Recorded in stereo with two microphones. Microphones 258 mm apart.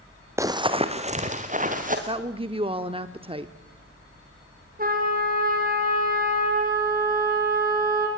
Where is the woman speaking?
20° right (ahead or behind), 0.7 m.